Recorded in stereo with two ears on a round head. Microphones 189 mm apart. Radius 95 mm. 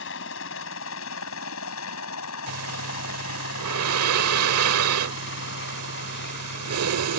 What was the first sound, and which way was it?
A helicopter, 65° left (ahead or behind).